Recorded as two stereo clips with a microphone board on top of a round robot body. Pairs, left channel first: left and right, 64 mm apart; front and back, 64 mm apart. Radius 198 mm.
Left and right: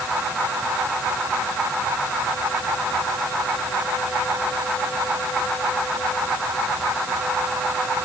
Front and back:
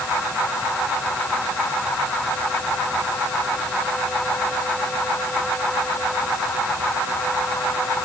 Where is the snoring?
I don't hear snoring.